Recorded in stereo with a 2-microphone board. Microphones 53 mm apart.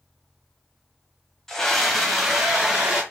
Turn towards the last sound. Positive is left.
turn(degrees=-10)  # may be behind; listen again after turning